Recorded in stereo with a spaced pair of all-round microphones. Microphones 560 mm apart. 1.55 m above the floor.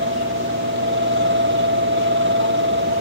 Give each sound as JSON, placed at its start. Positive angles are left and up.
{"t": 0.0, "sound": "a fan", "side_deg": -20}